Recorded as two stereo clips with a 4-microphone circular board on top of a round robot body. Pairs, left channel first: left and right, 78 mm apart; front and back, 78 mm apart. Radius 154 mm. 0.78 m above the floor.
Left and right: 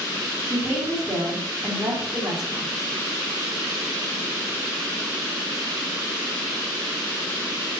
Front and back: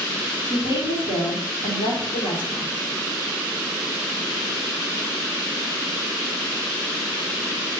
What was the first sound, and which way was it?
A woman speaking, 20° right.